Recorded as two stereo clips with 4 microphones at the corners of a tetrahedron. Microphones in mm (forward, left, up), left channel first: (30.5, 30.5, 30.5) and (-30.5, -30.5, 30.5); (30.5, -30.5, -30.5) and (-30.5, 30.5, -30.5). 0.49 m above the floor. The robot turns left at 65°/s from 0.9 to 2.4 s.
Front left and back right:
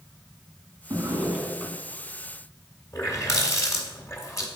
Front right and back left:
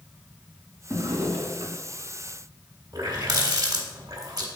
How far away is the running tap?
About 1.5 m.